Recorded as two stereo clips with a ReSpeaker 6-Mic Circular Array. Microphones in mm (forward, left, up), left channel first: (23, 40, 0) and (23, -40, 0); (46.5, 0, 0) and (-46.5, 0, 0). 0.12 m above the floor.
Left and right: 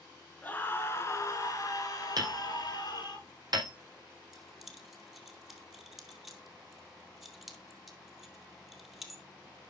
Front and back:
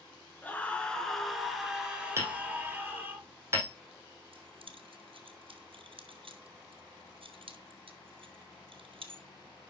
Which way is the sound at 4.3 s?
175° right.